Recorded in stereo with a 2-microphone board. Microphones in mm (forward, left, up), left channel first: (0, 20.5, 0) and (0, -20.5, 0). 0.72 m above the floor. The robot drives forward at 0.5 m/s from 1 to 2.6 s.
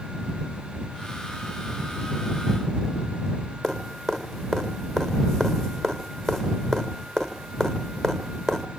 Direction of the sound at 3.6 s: 5° left (ahead or behind).